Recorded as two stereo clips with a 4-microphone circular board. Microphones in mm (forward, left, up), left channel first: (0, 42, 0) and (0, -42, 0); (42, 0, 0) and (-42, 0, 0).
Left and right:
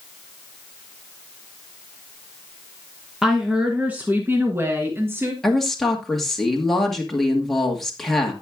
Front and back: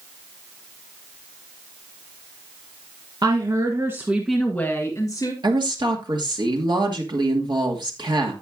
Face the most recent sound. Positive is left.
turn(degrees=180)